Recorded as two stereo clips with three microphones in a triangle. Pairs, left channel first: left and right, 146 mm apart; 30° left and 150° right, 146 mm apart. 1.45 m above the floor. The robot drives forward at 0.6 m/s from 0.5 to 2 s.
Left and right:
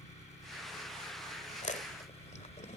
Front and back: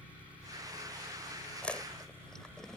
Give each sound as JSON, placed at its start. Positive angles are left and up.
{"t": 0.0, "sound": "an engine running", "azimuth_deg": 130}
{"t": 1.6, "sound": "chewing", "azimuth_deg": 110}